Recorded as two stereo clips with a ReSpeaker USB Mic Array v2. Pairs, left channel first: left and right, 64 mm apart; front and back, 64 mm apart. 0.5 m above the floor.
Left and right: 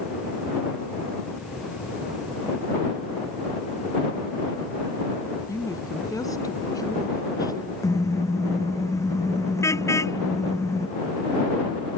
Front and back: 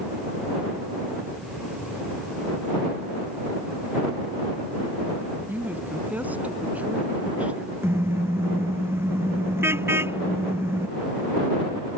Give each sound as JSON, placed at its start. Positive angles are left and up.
{"t": 5.5, "sound": "a woman speaking", "azimuth_deg": 120}
{"t": 7.8, "sound": "a car horn", "azimuth_deg": 130}